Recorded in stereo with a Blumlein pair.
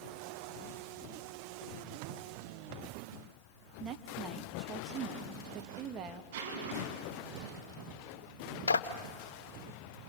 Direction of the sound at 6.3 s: 55° right.